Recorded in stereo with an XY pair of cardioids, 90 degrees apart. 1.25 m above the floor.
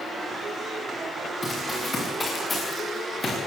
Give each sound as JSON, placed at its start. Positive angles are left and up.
{"t": 1.4, "sound": "running footsteps", "azimuth_deg": 25, "distance_m": 8.5}